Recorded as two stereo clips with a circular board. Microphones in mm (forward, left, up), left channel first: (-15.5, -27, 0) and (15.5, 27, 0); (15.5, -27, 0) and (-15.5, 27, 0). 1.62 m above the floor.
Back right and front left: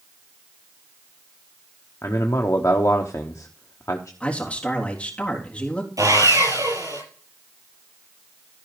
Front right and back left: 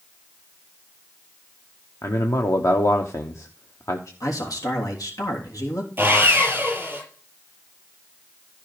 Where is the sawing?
65° left, 6 m.